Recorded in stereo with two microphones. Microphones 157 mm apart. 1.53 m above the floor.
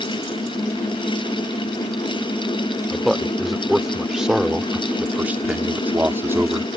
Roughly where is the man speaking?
Centre.